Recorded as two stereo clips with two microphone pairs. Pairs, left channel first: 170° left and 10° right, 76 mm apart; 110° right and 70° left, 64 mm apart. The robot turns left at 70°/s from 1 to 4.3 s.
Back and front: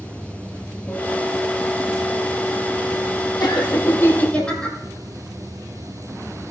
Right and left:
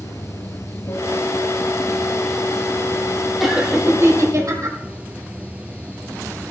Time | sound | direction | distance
0.0 | running water | 120° right | 1.2 m
3.4 | laughter | 160° left | 3 m